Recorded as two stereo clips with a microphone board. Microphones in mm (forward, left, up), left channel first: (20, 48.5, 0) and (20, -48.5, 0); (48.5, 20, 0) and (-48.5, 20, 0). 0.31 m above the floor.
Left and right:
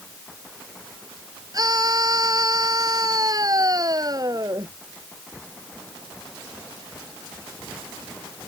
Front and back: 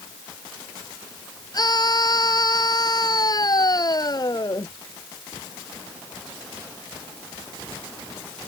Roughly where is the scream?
Ahead right.